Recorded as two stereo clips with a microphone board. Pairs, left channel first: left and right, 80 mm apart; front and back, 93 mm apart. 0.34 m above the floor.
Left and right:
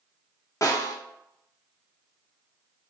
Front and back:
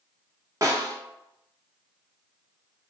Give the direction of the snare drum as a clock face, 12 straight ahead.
8 o'clock.